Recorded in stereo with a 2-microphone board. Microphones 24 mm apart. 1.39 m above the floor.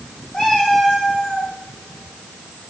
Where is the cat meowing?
35° left (ahead or behind), 4.5 m.